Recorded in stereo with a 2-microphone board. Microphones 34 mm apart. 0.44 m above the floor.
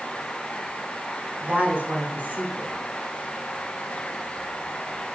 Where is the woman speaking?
70° right (ahead or behind), 3.5 m.